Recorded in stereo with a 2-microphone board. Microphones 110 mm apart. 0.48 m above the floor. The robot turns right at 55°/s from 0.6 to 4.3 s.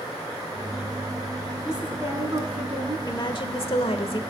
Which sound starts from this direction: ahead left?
A woman speaking, at 3.1 s.